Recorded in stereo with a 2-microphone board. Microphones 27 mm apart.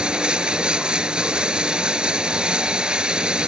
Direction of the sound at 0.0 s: 35° right (ahead or behind).